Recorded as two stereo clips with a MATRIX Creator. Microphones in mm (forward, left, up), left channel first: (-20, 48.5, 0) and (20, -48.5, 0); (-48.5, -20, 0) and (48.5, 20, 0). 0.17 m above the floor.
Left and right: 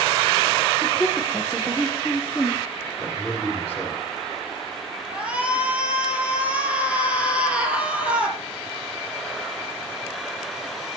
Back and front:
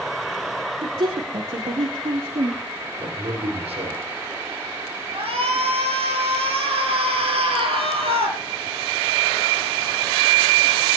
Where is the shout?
10° left, 5 m.